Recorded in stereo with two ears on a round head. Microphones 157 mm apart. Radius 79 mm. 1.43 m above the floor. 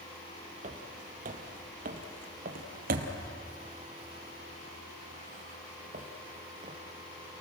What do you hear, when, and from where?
0.6 s footsteps: 40° right (ahead or behind), 2.5 m